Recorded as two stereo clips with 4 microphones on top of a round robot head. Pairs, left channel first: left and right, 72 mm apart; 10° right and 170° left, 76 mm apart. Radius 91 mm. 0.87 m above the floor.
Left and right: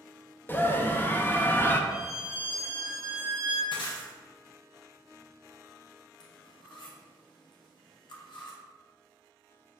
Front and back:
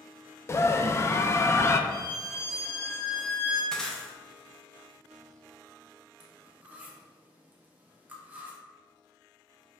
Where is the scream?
35° left, 0.5 m.